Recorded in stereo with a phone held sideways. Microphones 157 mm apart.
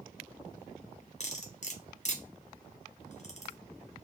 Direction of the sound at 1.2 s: 45° left (ahead or behind).